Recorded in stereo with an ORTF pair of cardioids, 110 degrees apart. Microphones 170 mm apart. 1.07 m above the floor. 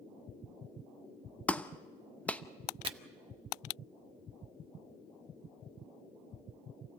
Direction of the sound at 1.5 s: 10° left.